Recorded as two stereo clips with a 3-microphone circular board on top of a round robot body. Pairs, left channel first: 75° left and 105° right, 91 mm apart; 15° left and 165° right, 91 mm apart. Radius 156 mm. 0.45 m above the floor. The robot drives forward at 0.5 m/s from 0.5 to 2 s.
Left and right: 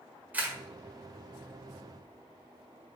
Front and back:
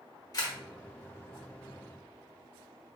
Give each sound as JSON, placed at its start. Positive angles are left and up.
{"t": 0.3, "sound": "a camera shutter", "azimuth_deg": -35, "distance_m": 1.5}